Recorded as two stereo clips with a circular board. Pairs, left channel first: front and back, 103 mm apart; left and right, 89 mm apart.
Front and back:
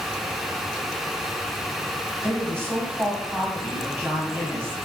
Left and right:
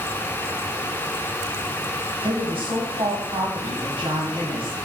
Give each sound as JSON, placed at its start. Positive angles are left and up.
{"t": 2.2, "sound": "a woman speaking", "azimuth_deg": -110, "distance_m": 1.0}